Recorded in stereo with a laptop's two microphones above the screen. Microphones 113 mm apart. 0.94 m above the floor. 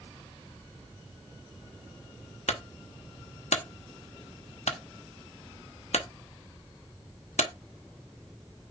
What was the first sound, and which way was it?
A clunk, 75° left (ahead or behind).